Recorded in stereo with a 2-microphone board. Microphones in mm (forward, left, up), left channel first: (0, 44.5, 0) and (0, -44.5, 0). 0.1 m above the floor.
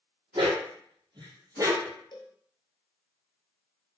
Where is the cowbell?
55° left (ahead or behind), 0.7 m.